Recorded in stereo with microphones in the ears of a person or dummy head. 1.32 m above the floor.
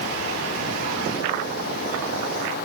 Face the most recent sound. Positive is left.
No sound to turn to.